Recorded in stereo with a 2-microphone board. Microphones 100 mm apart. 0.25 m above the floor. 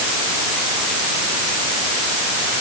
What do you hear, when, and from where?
Only background noise.